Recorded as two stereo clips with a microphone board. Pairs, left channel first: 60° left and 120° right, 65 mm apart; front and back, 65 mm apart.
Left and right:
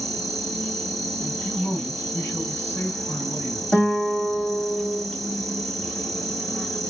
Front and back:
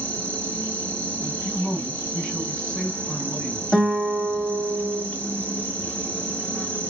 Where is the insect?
20° right, 1.1 m.